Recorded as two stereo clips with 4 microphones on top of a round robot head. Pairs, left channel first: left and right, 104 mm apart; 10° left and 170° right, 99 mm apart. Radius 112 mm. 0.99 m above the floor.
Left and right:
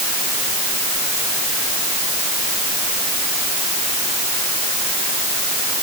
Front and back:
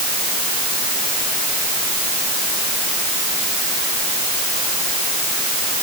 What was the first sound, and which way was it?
Only background noise.